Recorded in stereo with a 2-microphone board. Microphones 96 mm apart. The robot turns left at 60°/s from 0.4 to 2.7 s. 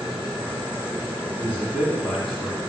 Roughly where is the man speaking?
Centre.